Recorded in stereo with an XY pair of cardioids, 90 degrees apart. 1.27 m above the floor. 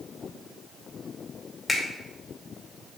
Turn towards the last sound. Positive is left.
turn(degrees=20)